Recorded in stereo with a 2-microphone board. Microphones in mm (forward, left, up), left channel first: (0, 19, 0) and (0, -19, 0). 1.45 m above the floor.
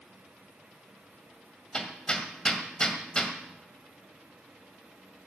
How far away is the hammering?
About 1.8 m.